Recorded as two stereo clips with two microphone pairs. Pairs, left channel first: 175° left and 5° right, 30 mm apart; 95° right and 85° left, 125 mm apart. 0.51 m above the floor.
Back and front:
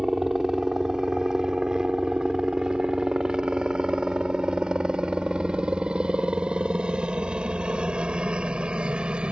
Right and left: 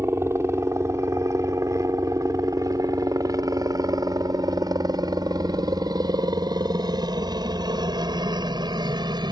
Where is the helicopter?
45° left; by 9.3 s 35° left.